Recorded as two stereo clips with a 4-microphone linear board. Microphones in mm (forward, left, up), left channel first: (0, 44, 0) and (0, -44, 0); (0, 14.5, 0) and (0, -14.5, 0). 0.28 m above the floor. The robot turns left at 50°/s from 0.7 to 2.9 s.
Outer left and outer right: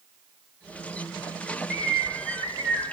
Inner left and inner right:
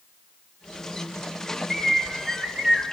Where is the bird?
35° right, 2 m; by 2.8 s 95° right, 2 m.